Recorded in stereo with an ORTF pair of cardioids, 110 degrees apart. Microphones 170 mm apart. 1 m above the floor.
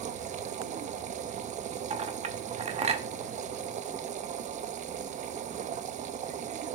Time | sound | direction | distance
0.0 | a machine running | 50° right | 0.7 m
1.9 | a clink | 40° right | 1.1 m